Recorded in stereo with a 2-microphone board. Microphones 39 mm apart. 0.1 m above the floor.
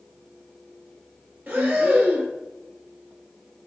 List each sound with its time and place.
1.5 s breathing: 50° right (ahead or behind), 1.1 m